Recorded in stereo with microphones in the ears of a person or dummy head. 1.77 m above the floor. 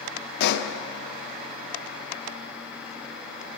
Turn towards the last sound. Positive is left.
turn(degrees=65)  # may be behind; listen again after turning